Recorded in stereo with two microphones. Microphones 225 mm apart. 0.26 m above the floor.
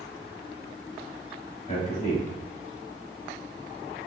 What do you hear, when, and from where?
1.7 s a man speaking: 30° left (ahead or behind), 1.0 m